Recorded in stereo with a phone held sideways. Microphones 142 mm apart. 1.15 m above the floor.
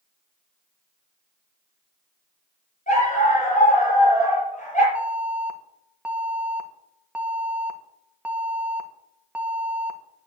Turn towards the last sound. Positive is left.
turn(degrees=-10)  # may be behind; listen again after turning